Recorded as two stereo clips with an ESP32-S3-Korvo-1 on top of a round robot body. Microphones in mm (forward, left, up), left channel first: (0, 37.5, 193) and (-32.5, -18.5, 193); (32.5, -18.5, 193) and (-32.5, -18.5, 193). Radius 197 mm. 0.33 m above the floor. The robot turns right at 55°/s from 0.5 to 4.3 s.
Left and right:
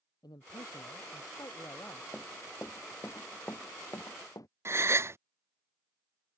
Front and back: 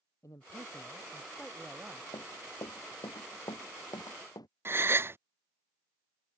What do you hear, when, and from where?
0.2 s a man speaking: 40° left; by 2.0 s 125° left
2.1 s running footsteps: 15° right; by 4.5 s 20° left
4.7 s a gasp: 145° right